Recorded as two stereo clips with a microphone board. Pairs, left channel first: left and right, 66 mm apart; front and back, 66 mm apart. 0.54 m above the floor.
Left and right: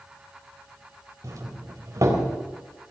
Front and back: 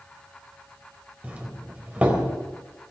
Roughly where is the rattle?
No rattle in this recording.